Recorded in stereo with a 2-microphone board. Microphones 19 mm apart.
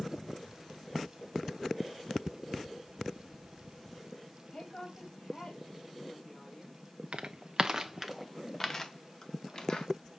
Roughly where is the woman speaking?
Left.